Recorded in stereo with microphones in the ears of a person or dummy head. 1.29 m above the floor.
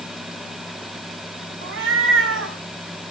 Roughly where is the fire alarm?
I don't hear a fire alarm.